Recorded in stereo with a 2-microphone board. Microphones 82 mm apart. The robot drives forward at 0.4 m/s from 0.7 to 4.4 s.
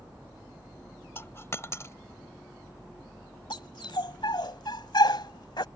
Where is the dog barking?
75° left (ahead or behind); by 5.7 s 70° left (ahead or behind).